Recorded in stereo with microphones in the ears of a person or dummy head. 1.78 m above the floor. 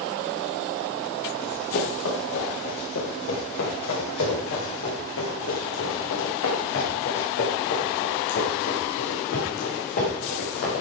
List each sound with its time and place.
1.4 s running footsteps: 75° left (ahead or behind), 9.5 m; by 10.8 s 50° left (ahead or behind), 7.5 m